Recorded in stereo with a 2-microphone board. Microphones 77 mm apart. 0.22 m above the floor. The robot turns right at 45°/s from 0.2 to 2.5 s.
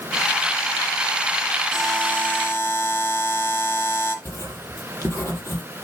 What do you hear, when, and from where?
1.7 s a buzzer: straight ahead, 3.5 m; by 4.2 s 35° left, 3.5 m
4.2 s writing: 35° left (ahead or behind), 7.5 m